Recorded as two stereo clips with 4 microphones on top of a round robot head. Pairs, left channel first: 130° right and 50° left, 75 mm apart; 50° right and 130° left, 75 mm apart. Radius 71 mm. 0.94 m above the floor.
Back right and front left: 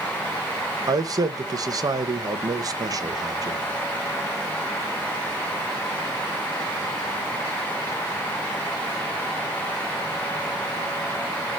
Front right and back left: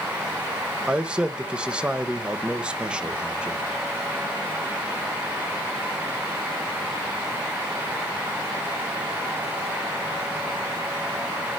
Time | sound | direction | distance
0.9 | a man speaking | 60° left | 1.4 m